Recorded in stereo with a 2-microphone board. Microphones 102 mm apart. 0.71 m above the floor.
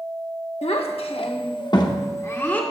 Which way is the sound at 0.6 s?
80° left.